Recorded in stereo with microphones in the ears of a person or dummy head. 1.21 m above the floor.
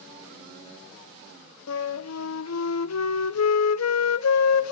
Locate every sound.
1.7 s a flute: 85° left, 0.6 m